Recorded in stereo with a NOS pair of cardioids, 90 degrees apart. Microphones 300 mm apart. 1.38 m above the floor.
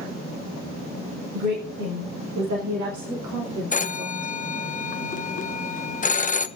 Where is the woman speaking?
70° right, 7.5 m; by 4.4 s 75° right, 3 m.